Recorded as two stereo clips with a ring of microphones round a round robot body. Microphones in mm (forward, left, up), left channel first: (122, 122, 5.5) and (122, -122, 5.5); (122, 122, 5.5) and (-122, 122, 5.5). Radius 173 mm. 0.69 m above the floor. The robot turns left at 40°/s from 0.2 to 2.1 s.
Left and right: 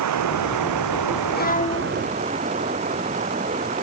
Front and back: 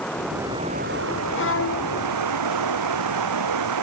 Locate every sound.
0.0 s running water: 85° right; by 3.8 s 165° right
1.4 s a violin: 40° left; by 2.0 s 15° left